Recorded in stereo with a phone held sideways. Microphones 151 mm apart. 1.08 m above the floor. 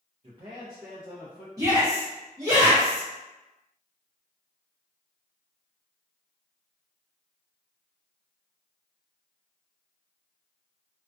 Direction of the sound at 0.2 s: 45° right (ahead or behind).